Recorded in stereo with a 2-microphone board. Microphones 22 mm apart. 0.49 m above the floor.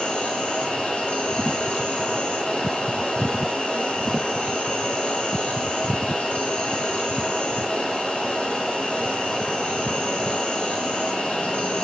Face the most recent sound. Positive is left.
turn(degrees=80)